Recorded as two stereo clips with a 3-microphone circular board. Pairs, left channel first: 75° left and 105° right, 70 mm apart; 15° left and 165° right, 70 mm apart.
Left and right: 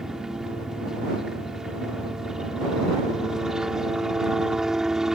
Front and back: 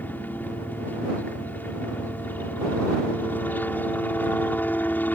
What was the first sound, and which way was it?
A helicopter, 25° right.